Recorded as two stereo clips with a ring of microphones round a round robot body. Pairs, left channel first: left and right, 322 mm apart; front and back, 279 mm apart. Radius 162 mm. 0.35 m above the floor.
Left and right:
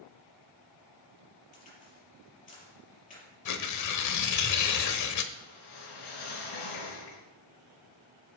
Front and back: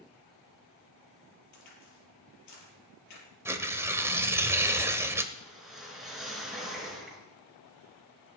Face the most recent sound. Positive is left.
turn(degrees=90)